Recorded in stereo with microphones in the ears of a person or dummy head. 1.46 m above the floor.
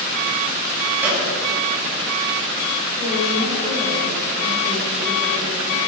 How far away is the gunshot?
About 6.5 m.